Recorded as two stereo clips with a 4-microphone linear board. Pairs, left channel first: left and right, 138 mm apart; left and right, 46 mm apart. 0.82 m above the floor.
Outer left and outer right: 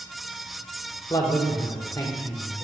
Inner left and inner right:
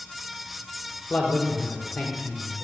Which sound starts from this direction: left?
A man speaking, at 1.1 s.